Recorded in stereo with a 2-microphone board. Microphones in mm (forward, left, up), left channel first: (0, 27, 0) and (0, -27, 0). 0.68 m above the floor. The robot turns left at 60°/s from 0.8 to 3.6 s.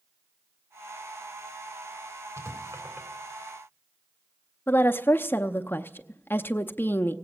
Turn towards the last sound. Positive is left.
turn(degrees=40)  # may be behind; listen again after turning